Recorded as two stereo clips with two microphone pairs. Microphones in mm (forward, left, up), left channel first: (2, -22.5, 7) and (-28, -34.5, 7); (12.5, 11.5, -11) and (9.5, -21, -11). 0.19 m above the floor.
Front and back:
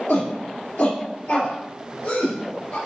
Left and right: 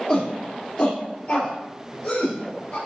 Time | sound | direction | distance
0.1 | a shout | 25° left | 3 m